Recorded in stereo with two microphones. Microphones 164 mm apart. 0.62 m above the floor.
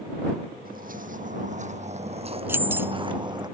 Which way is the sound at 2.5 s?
15° right (ahead or behind).